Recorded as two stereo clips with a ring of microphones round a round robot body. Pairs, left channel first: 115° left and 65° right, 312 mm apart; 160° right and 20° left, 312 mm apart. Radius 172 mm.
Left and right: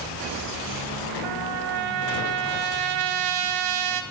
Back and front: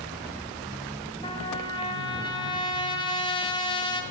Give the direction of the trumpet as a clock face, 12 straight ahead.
3 o'clock.